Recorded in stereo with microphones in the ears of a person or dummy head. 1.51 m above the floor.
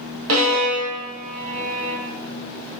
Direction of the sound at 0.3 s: 70° right (ahead or behind).